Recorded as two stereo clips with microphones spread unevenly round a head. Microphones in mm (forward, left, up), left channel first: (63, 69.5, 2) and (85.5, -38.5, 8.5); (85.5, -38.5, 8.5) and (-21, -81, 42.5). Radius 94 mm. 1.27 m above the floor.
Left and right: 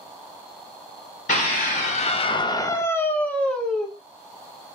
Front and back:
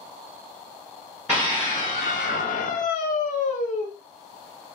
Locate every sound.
1.3 s a scream: 125° left, 0.6 m; by 3.9 s 15° left, 1.2 m